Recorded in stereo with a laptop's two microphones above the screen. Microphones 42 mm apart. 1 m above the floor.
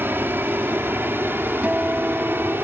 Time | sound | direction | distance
0.0 | an aircraft | 60° right (ahead or behind) | ?
1.6 | a guitar | 30° right (ahead or behind) | ?